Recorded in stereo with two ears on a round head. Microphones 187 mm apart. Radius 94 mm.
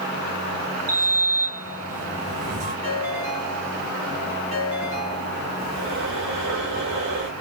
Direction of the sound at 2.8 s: 30° right (ahead or behind).